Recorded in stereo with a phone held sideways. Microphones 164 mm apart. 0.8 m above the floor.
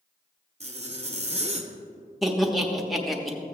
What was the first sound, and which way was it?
A zipper, 40° right (ahead or behind).